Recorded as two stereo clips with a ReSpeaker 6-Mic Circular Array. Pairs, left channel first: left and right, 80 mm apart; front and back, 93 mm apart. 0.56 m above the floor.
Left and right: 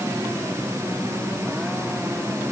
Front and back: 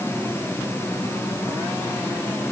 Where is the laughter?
I don't hear laughter.